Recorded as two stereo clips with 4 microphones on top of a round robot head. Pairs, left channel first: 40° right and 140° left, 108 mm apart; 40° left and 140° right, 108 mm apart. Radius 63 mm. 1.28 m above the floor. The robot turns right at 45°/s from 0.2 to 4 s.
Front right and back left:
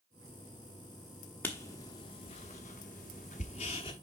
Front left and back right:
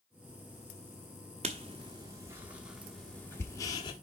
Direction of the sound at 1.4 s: 115° right.